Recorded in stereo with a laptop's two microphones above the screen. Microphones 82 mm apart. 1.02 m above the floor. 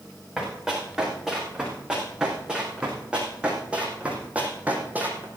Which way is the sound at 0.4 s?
10° right (ahead or behind).